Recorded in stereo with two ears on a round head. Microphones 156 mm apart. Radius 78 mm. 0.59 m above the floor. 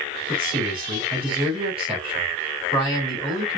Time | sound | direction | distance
0.3 | a man speaking | 30° right (ahead or behind) | 4 m